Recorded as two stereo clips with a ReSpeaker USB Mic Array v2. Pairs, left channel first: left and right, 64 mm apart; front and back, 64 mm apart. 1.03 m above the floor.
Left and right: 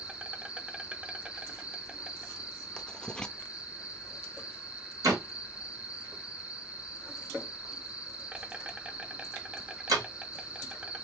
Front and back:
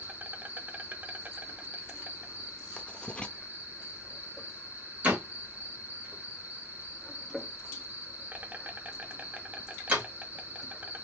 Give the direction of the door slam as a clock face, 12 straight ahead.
4 o'clock.